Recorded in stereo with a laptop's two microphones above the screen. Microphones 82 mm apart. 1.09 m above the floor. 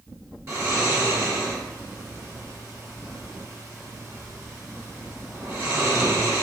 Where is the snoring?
35° right (ahead or behind), 0.9 m.